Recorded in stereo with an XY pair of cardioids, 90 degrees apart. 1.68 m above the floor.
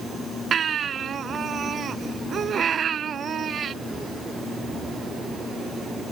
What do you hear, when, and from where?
0.5 s a baby crying: 60° right